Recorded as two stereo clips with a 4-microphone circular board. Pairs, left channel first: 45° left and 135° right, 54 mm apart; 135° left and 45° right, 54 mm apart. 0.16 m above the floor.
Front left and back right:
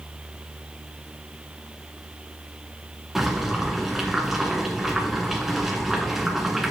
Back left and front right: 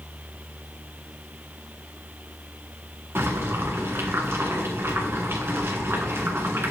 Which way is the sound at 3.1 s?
50° right.